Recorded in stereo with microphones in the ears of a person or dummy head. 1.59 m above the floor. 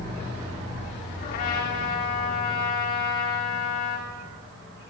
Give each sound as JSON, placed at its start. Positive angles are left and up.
{"t": 1.2, "sound": "a trumpet", "side_deg": 50, "distance_m": 3.5}